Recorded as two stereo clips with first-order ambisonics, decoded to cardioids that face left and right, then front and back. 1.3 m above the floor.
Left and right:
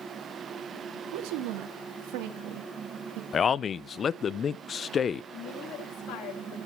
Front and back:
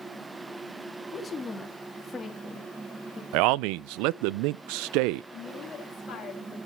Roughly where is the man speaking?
Behind.